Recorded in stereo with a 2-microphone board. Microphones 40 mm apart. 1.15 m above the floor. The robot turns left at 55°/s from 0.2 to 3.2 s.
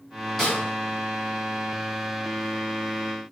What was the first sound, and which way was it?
A snare drum, centre (ahead or behind).